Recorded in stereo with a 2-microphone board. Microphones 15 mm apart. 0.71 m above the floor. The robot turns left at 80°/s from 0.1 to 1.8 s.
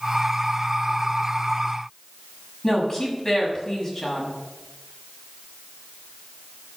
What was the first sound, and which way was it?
A woman speaking, 35° left (ahead or behind).